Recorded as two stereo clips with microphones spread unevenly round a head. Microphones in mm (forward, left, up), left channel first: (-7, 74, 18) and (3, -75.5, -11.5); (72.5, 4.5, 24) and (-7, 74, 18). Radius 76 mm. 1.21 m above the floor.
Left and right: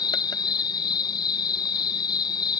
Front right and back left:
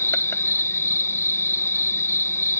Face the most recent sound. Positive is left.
turn(degrees=25)